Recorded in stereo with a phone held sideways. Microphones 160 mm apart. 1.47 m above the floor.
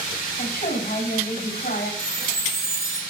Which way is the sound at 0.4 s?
55° left (ahead or behind).